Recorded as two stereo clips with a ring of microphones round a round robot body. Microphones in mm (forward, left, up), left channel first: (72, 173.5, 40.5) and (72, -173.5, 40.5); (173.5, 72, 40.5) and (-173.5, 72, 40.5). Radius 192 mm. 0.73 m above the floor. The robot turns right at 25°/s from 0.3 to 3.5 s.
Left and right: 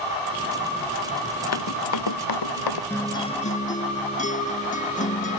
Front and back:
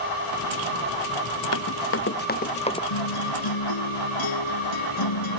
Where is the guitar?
5° left; by 5.4 s 20° left.